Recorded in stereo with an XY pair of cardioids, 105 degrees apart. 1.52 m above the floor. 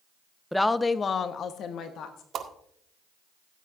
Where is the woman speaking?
5° left, 0.7 m; by 2.2 s 80° left, 1.5 m.